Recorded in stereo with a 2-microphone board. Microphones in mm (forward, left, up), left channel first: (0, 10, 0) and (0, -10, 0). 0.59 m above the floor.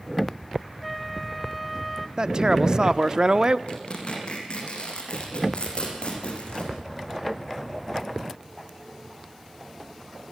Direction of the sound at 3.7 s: 60° left (ahead or behind).